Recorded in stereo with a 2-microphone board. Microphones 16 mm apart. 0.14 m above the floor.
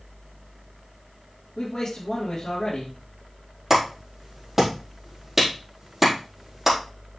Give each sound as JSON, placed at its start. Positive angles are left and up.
{"t": 1.6, "sound": "a man speaking", "side_deg": 40, "distance_m": 3.5}
{"t": 3.7, "sound": "a clap", "side_deg": -25, "distance_m": 4.5}